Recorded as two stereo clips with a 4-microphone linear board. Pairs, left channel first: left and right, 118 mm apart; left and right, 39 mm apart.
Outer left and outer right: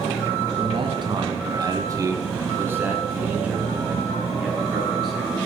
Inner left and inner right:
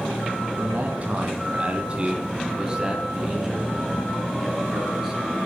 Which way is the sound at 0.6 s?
45° right (ahead or behind).